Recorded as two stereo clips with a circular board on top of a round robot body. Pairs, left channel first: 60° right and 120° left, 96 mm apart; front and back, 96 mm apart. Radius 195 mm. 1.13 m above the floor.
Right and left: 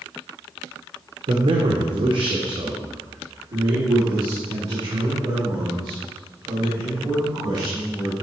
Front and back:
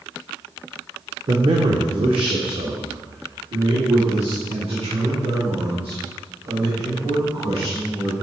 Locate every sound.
1.3 s a man speaking: 145° left, 1.3 m; by 8.1 s 175° left, 7 m